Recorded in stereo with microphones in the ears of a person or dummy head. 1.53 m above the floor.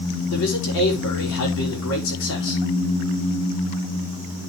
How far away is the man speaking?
About 5 m.